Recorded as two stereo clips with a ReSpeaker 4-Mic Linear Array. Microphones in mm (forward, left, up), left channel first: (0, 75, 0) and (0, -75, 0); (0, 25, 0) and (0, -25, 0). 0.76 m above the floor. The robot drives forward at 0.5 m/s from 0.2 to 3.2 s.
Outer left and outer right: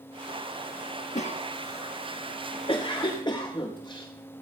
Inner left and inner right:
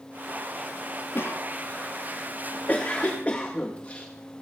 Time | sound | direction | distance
1.1 | a cough | 50° left (ahead or behind) | 1.2 m